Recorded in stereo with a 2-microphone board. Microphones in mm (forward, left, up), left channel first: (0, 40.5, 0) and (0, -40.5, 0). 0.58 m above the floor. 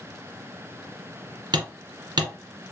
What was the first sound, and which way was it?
Hammering, 65° right (ahead or behind).